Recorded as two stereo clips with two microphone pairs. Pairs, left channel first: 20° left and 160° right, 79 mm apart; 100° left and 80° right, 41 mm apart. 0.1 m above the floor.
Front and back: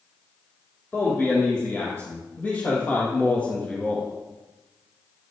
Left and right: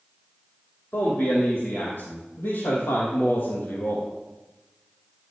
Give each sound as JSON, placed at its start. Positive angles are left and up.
{"t": 0.9, "sound": "a man speaking", "azimuth_deg": 85, "distance_m": 5.0}